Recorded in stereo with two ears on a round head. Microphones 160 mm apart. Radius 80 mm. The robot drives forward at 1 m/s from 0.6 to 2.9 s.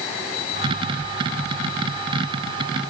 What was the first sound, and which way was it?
Only background noise.